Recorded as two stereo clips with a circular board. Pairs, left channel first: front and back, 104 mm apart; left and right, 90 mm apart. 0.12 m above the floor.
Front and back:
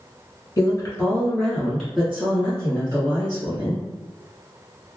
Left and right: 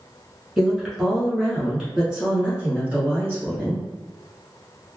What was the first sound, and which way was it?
A woman speaking, straight ahead.